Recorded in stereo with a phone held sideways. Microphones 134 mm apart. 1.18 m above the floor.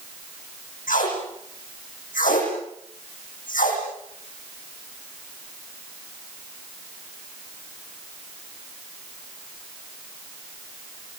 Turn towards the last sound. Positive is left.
turn(degrees=85)